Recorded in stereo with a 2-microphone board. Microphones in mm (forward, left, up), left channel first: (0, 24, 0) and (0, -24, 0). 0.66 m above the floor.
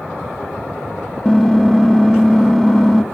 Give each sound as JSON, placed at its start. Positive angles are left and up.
{"t": 1.2, "sound": "typing on a keyboard", "side_deg": 10, "distance_m": 0.6}